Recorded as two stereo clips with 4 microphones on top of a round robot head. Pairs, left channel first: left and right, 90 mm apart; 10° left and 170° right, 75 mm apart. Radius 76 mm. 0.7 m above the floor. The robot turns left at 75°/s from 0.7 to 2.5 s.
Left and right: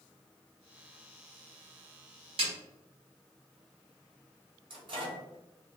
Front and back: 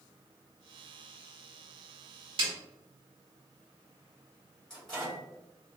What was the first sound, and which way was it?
A snare drum, 135° right.